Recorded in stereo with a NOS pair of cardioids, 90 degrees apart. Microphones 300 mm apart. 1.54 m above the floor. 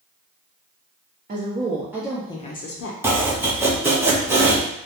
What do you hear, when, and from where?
1.3 s a woman speaking: 30° right, 0.8 m; by 2.9 s 55° left, 0.6 m
3.0 s chopping: 10° right, 0.7 m